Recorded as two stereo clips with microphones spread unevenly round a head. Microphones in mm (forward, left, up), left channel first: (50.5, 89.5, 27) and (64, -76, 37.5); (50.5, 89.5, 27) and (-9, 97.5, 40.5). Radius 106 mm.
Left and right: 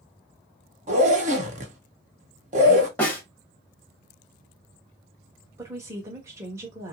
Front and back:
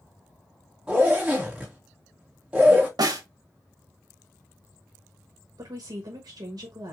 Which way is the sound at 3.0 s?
175° left.